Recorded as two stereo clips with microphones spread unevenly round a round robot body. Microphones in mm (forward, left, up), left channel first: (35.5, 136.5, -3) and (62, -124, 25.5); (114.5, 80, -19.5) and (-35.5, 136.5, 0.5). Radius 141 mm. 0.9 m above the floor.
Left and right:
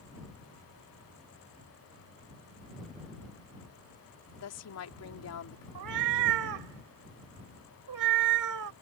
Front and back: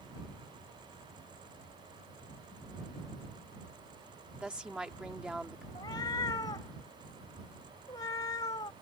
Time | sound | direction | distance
4.4 | a woman speaking | 75° left | ?
5.8 | a cat meowing | 95° right | ?